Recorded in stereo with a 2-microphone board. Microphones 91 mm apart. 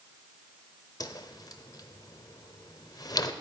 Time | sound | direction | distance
1.0 | a whoosh | 45° left (ahead or behind) | 0.6 m